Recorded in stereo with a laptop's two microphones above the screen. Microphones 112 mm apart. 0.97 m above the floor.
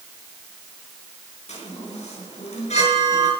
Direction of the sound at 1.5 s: 75° left (ahead or behind).